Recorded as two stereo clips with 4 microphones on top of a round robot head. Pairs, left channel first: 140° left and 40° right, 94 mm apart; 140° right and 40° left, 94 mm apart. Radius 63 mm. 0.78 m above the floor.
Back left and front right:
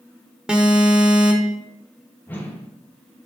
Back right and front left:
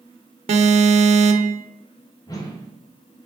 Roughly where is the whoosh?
Behind.